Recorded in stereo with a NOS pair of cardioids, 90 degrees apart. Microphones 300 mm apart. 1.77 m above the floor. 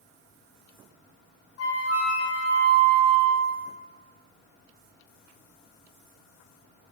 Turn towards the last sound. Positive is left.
turn(degrees=55)